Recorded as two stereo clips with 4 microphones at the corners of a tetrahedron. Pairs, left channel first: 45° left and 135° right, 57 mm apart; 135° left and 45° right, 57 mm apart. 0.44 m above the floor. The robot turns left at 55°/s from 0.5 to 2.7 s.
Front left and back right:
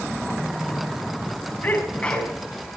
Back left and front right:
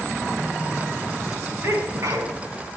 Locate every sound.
1.6 s a sneeze: 5° right, 4.5 m; by 2.4 s 45° right, 4.5 m